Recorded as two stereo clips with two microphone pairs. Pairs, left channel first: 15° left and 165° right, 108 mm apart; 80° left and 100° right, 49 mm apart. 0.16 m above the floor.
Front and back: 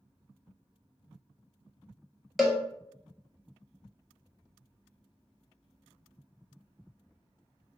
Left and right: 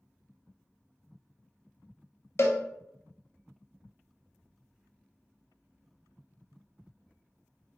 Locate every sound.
2.4 s a cowbell: 110° left, 0.6 m